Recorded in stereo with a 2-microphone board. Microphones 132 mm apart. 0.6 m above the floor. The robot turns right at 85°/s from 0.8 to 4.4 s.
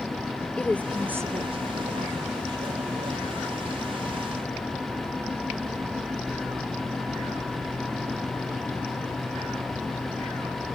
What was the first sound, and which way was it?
A woman speaking, 10° left (ahead or behind).